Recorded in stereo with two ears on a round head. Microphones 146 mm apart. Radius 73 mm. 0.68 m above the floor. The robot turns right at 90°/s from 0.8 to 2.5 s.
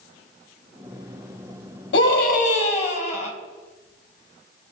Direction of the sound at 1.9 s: 85° left.